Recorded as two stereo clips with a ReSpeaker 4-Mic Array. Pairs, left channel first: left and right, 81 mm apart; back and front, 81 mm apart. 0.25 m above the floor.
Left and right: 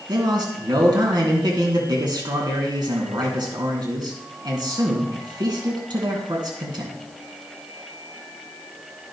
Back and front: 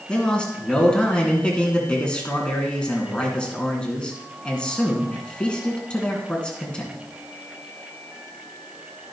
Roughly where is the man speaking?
Right.